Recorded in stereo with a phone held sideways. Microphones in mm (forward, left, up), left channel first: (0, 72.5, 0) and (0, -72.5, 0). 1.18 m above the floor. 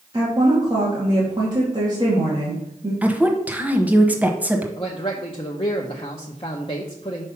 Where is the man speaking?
40° left (ahead or behind), 0.8 m.